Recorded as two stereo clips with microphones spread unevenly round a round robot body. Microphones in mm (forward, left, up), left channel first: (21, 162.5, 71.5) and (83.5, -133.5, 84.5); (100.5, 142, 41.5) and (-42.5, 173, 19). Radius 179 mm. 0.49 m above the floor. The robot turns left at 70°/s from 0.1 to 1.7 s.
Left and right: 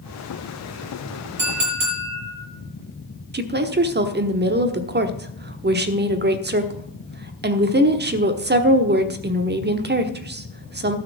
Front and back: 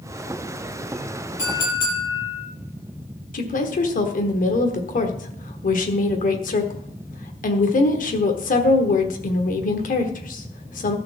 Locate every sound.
1.4 s a clink: 40° right, 7.5 m; by 2.5 s 65° right, 7.5 m
3.3 s a woman speaking: 25° right, 1.3 m